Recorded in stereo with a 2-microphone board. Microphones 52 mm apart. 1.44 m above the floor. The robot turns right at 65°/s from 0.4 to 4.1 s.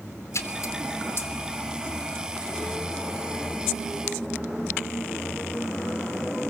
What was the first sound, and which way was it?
A splash, 70° left (ahead or behind).